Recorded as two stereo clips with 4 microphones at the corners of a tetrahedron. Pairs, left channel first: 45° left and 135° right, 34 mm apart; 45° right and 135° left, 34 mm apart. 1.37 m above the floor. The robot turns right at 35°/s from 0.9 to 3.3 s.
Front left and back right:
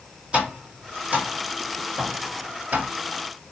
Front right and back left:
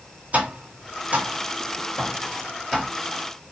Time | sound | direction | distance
0.3 | tapping | 170° left | 1.8 m